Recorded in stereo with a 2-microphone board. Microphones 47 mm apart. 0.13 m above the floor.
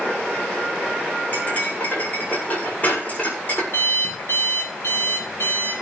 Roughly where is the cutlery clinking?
Left.